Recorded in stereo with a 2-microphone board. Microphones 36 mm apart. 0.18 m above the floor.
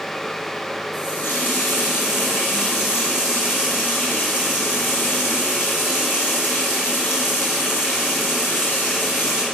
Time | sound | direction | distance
0.9 | a running tap | 65° left (ahead or behind) | 4 m